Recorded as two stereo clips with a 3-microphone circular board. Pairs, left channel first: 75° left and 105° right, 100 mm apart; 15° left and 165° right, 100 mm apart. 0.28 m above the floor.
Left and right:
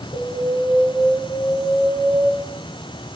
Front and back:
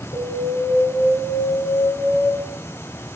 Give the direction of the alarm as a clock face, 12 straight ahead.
11 o'clock.